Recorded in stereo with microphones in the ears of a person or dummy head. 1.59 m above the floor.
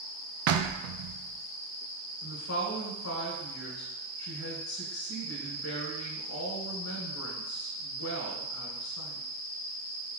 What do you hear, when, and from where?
0.5 s knocking: 60° right (ahead or behind), 0.6 m
2.2 s a woman speaking: 60° left (ahead or behind), 1.1 m